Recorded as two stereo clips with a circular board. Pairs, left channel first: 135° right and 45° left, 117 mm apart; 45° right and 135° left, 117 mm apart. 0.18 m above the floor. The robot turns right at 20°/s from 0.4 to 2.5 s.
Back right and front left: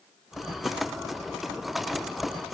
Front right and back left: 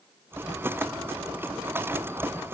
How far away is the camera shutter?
No camera shutter in this recording.